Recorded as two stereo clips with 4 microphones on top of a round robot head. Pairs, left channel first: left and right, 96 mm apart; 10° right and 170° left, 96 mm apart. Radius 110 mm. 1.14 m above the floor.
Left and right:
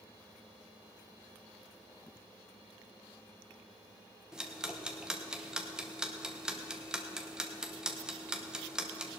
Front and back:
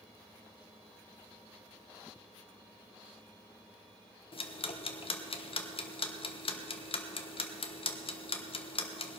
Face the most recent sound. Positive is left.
turn(degrees=-10)